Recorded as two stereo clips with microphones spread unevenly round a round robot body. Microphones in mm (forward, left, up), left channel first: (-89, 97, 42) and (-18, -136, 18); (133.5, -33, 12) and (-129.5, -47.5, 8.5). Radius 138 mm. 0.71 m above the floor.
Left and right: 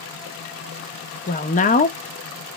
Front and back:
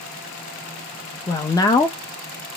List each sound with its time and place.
1.3 s a woman speaking: 70° left, 0.5 m